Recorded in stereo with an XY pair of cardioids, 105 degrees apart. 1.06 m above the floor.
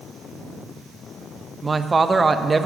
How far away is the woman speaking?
About 0.7 m.